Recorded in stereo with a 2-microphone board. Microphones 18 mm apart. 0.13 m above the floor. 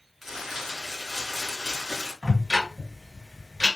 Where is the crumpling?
20° right (ahead or behind), 1.6 m.